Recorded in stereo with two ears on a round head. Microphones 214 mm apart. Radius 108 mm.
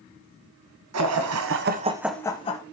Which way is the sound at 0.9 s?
75° right (ahead or behind).